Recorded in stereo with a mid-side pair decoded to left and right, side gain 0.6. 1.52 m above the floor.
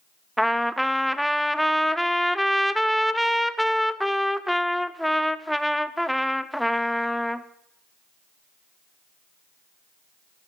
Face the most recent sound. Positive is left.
turn(degrees=0)